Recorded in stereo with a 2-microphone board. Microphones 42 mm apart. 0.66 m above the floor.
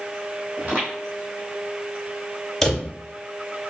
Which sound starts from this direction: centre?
A drawer, at 2.6 s.